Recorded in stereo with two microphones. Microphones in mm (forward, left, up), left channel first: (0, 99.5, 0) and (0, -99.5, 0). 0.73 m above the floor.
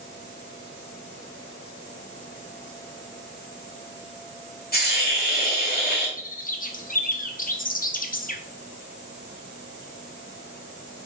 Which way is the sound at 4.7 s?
50° left (ahead or behind).